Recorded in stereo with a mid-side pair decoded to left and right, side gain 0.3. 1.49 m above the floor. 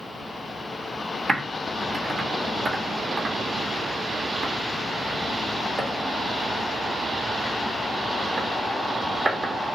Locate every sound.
1.3 s typing on a keyboard: 45° right, 1.3 m